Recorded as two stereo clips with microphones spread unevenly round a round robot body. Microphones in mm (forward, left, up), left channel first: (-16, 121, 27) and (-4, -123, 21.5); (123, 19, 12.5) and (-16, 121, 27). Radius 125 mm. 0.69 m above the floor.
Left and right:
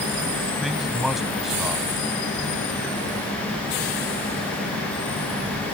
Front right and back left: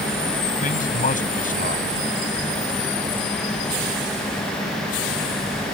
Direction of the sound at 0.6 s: Straight ahead.